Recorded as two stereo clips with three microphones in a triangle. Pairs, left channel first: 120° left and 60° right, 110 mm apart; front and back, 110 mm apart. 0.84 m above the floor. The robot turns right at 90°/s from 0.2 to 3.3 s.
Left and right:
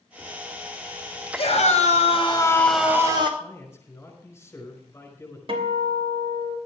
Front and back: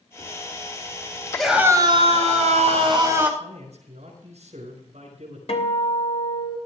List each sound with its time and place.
1.4 s a scream: 80° left, 4 m; by 3.3 s 100° right, 4 m
3.4 s a man speaking: 175° right, 5 m
5.5 s a guitar: 25° right, 3 m